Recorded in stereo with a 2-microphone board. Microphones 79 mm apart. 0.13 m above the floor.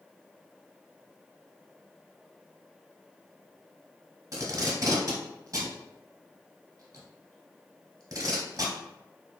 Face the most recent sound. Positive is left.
turn(degrees=-45)  # may be behind; listen again after turning